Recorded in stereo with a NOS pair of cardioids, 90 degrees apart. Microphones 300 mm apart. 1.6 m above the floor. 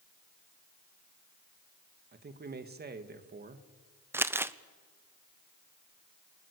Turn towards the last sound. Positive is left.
turn(degrees=-10)